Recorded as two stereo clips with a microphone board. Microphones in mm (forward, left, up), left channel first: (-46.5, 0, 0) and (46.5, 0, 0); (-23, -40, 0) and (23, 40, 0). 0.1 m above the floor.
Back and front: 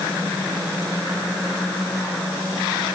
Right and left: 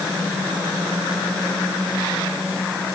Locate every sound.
Only background noise.